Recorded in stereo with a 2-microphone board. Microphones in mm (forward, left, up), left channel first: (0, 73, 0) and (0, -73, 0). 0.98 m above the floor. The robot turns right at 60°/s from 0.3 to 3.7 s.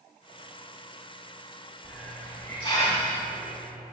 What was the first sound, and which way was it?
A hiss, 10° right.